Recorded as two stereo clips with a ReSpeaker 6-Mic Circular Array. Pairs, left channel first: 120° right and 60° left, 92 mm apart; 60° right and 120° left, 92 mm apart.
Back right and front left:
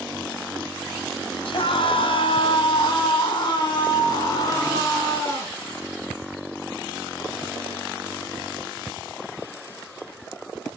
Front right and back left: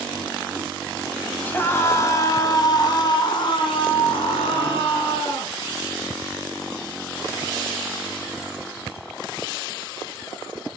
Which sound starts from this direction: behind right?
A scream, at 1.4 s.